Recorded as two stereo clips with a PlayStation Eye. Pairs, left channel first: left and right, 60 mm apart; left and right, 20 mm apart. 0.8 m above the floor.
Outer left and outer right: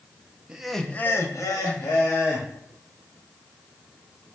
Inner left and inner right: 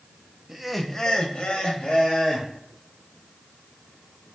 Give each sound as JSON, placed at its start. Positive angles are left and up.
{"t": 0.5, "sound": "laughter", "side_deg": -15, "distance_m": 0.7}